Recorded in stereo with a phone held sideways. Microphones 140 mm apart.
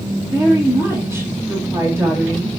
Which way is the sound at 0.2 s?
20° right (ahead or behind).